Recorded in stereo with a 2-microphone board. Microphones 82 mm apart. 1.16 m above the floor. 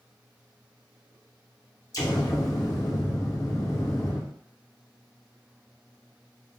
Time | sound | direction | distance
1.9 | an explosion | 45° left (ahead or behind) | 0.6 m